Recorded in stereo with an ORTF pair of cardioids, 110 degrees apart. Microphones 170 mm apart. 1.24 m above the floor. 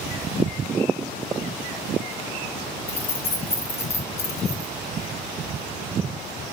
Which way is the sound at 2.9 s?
35° left.